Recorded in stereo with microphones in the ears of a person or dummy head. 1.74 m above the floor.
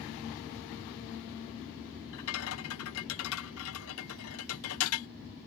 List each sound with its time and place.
2.1 s a rattle: 80° left